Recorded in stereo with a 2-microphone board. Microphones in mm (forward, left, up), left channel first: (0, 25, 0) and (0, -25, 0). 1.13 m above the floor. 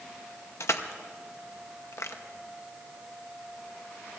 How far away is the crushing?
About 0.8 m.